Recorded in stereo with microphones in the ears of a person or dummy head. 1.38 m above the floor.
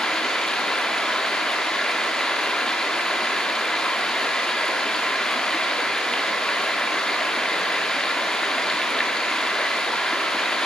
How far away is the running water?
About 1.8 m.